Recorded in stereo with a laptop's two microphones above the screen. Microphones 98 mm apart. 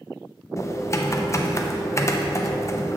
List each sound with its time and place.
0.6 s typing on a keyboard: 35° left (ahead or behind), 0.7 m